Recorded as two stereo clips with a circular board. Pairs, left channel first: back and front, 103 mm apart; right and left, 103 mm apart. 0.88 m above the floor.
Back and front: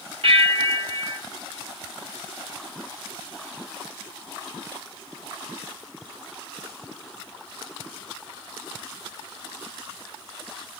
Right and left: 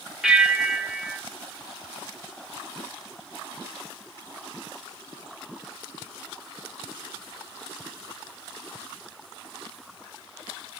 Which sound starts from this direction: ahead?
A bell, at 0.2 s.